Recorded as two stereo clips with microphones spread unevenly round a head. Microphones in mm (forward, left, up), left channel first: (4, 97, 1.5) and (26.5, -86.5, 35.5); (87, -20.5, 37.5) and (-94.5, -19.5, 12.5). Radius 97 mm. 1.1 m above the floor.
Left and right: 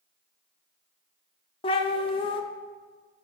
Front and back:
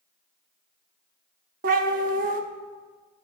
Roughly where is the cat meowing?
Behind.